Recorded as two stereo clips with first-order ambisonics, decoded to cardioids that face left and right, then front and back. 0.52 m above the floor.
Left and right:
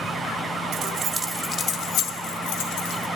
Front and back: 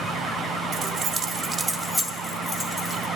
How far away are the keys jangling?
About 0.8 m.